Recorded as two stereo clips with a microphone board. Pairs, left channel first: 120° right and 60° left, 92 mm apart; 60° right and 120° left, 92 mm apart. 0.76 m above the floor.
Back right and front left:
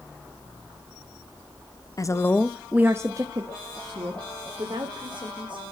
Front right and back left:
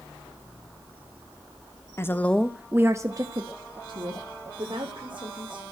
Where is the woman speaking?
105° right, 0.9 m; by 5.6 s 85° left, 3 m.